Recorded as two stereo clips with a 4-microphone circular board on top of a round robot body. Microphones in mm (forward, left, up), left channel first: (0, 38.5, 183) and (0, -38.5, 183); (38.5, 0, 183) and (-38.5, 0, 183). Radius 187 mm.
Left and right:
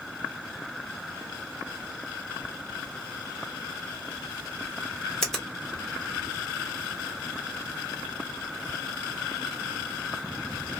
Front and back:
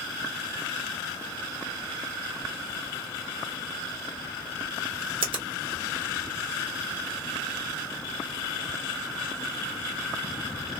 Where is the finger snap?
175° left, 1.4 m.